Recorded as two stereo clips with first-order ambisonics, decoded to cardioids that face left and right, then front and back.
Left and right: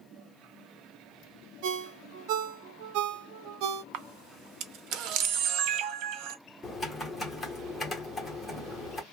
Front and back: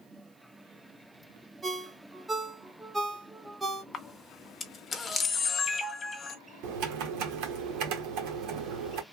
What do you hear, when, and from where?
1.6 s a ringtone: 100° right, 0.7 m
3.9 s a camera shutter: 70° right, 0.6 m
6.6 s typing on a keyboard: 170° left, 1.2 m